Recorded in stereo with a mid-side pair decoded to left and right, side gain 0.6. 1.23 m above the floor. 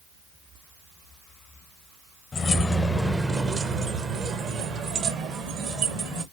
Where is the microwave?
I don't hear a microwave.